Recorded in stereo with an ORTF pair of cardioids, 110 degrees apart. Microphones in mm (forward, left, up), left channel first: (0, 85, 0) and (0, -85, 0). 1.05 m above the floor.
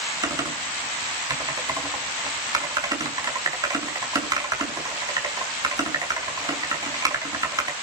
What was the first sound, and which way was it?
Typing on a keyboard, 20° right.